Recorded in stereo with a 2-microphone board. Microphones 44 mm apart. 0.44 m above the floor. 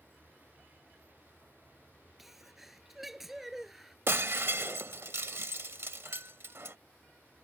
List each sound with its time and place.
0.0 s a vehicle: 40° right (ahead or behind); by 7.4 s 50° right (ahead or behind)
2.2 s a sneeze: 5° right (ahead or behind)
4.1 s breaking glass: 65° right (ahead or behind)